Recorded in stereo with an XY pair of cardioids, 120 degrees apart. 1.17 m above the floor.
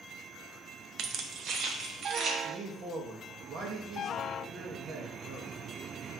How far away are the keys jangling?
About 0.7 m.